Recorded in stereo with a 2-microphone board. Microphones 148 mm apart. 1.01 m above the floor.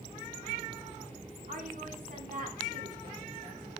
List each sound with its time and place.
1.5 s a woman speaking: 65° right (ahead or behind), 2.5 m